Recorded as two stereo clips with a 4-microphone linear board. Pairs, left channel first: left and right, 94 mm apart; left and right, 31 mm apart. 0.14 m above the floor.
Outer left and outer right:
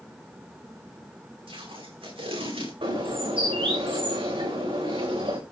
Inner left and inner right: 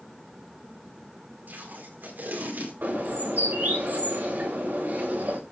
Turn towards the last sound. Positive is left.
turn(degrees=-75)  # may be behind; listen again after turning